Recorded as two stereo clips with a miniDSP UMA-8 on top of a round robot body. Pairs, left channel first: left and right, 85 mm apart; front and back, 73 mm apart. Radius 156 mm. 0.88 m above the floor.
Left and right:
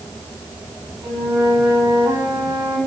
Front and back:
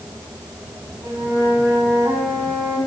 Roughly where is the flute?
Behind right.